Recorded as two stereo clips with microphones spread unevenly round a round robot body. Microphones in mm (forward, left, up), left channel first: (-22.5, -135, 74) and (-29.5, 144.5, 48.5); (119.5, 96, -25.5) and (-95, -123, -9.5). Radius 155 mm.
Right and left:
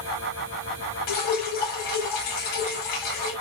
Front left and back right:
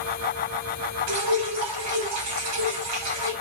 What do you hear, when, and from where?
1.1 s dripping: 100° right, 6 m